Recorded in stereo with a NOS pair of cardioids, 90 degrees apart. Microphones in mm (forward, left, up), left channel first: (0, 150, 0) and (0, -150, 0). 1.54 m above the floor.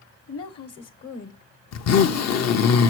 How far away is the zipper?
About 0.8 m.